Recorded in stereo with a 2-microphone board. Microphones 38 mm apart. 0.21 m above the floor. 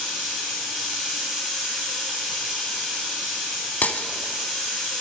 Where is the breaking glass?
45° left (ahead or behind), 0.6 m.